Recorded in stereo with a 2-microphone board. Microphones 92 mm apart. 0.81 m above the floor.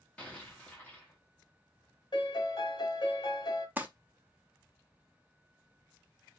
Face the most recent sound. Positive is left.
turn(degrees=-20)  # may be behind; listen again after turning